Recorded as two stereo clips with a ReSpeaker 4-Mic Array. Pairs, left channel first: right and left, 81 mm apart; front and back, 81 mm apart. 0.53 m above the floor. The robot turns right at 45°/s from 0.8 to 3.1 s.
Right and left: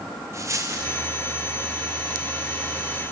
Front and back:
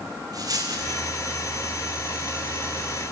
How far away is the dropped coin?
About 2.5 m.